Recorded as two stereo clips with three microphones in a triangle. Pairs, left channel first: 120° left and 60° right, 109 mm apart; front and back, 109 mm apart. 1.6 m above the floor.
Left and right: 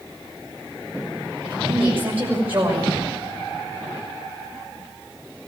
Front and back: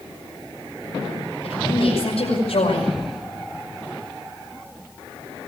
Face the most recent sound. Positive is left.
turn(degrees=10)